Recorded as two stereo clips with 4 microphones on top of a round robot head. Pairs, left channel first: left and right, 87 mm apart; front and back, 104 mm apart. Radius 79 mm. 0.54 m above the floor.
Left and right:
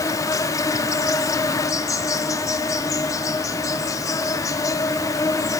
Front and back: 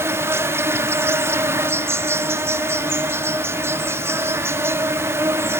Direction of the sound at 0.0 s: 125° left.